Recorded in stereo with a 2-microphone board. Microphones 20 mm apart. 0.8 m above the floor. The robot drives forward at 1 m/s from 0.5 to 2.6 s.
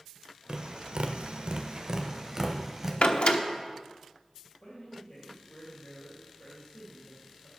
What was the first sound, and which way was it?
Tapping, 45° right (ahead or behind).